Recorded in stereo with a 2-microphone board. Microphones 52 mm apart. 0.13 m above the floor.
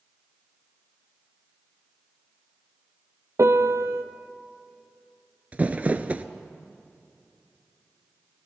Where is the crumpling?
30° right (ahead or behind), 0.5 m.